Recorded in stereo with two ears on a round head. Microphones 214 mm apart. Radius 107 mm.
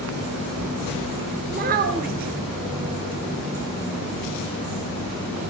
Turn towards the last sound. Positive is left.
turn(degrees=-40)  # may be behind; listen again after turning